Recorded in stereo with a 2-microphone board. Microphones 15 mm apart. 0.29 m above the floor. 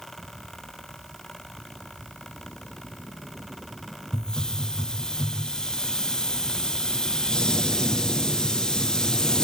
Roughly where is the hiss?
Left.